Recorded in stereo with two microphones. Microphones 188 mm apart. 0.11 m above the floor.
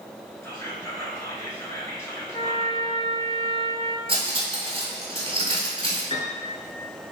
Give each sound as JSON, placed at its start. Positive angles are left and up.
{"t": 0.4, "sound": "whispering", "side_deg": 15, "distance_m": 1.1}
{"t": 2.3, "sound": "a trumpet", "side_deg": 25, "distance_m": 0.5}
{"t": 4.1, "sound": "cutlery clinking", "side_deg": -30, "distance_m": 1.1}
{"t": 6.1, "sound": "a piano", "side_deg": 25, "distance_m": 1.4}